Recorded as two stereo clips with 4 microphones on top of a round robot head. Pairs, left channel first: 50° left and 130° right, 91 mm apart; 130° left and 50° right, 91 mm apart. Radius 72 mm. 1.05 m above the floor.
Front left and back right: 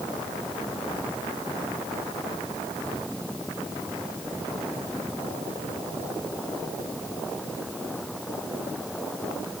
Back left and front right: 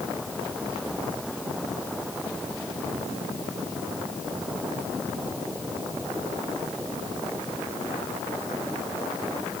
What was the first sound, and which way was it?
Only background noise.